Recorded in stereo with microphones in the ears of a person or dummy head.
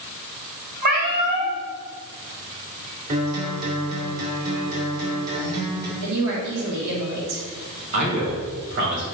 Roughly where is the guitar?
Right.